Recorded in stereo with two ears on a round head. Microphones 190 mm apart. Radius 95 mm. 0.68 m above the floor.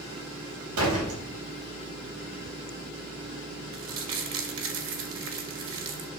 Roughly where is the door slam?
Right.